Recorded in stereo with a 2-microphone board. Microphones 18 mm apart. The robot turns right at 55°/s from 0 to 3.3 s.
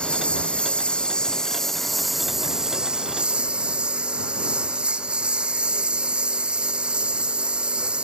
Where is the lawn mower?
70° left; by 8.1 s 105° right.